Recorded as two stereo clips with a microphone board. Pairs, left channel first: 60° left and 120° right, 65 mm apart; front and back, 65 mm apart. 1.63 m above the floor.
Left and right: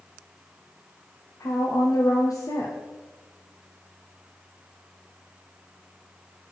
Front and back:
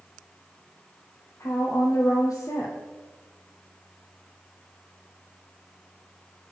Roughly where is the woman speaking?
Ahead left.